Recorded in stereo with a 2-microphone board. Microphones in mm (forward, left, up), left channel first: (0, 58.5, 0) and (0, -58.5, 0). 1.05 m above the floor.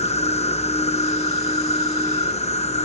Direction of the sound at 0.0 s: 65° left (ahead or behind).